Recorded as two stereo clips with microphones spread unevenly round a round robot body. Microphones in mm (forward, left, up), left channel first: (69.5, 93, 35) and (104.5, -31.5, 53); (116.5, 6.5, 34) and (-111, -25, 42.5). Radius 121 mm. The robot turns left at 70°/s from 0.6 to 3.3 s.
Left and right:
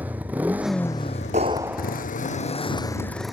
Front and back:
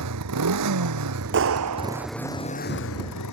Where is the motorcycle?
155° right; by 3.3 s 15° left.